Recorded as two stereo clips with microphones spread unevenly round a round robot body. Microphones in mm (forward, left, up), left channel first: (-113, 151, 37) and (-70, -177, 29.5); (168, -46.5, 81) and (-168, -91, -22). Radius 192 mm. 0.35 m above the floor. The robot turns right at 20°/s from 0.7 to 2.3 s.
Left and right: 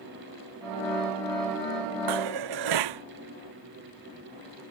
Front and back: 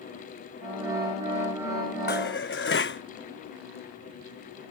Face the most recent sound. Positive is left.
turn(degrees=-50)